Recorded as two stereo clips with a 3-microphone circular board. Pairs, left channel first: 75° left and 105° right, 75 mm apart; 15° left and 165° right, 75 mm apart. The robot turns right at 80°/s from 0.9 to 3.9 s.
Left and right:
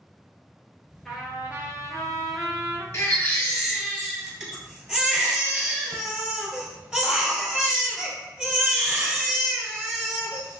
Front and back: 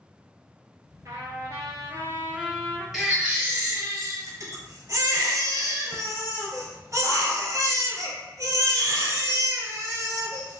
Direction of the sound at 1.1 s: 160° left.